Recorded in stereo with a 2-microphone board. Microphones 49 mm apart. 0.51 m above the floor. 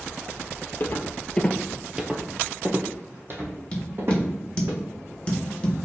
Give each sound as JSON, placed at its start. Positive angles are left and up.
{"t": 0.8, "sound": "footsteps", "side_deg": 45, "distance_m": 0.6}
{"t": 3.7, "sound": "tapping", "side_deg": 20, "distance_m": 1.2}